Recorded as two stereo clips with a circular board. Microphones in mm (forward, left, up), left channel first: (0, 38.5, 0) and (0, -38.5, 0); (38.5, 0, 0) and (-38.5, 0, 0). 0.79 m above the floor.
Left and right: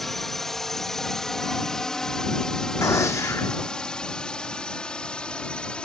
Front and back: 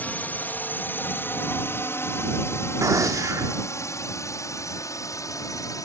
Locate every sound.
0.0 s a drone: 10° left; by 5.8 s 20° left
2.8 s a gunshot: 140° left